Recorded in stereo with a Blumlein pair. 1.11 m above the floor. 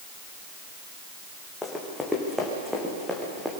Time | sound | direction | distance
1.6 | running footsteps | 5° left | 5 m